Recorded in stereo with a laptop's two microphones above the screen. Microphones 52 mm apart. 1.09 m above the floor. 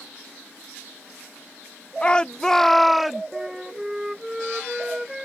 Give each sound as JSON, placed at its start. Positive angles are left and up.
{"t": 2.0, "sound": "a shout", "side_deg": 20}
{"t": 3.3, "sound": "a flute", "side_deg": -5}